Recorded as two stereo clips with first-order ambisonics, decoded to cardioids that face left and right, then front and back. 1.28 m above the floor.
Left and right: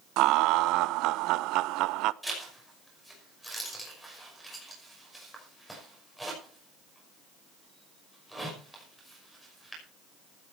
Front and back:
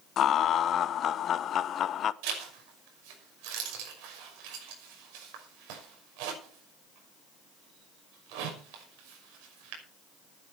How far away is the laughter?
About 0.7 m.